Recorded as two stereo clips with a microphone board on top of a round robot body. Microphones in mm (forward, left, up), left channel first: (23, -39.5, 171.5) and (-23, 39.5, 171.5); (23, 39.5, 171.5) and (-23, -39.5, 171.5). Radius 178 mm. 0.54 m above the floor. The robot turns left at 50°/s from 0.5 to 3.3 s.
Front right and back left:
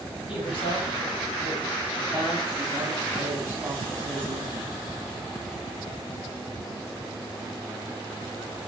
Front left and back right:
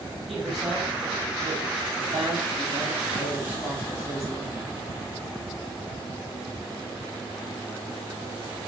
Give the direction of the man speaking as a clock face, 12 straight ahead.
1 o'clock.